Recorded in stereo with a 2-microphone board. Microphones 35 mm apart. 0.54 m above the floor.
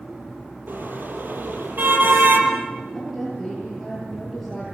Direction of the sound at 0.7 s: 60° right (ahead or behind).